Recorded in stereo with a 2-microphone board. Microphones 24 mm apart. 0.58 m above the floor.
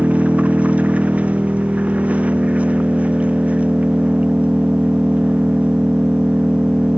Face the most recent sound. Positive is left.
turn(degrees=-80)